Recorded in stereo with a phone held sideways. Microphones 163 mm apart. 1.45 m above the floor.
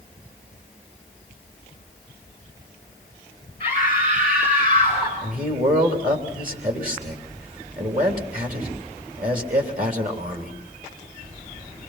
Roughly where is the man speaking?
Right.